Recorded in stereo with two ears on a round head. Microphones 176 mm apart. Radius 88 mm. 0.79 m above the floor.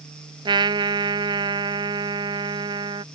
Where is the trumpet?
25° right (ahead or behind).